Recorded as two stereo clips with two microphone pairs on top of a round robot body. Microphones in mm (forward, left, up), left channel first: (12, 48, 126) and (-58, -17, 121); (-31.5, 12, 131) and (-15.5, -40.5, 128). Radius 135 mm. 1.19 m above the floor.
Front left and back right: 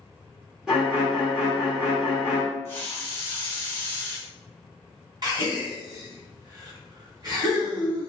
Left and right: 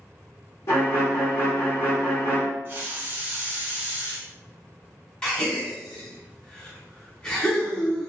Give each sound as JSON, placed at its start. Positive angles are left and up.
{"t": 0.7, "sound": "a violin", "azimuth_deg": 135, "distance_m": 0.9}
{"t": 2.6, "sound": "a hiss", "azimuth_deg": -25, "distance_m": 0.5}
{"t": 5.2, "sound": "a gasp", "azimuth_deg": -175, "distance_m": 1.3}